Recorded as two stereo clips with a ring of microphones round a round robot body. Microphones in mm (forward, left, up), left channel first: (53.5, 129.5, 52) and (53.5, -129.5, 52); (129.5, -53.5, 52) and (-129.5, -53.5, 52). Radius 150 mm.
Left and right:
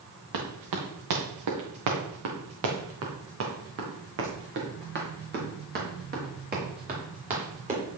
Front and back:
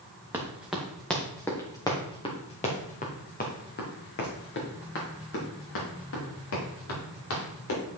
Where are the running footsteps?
100° right, 3 m; by 7.8 s 30° right, 6 m.